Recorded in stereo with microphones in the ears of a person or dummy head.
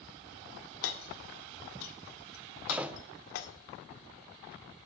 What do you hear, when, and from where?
0.8 s hammering: 75° left (ahead or behind), 1.7 m
2.7 s a door slam: 10° right (ahead or behind), 0.6 m